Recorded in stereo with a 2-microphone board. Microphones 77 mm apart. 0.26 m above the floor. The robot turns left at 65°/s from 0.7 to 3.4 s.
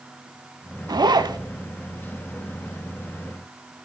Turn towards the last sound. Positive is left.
turn(degrees=125)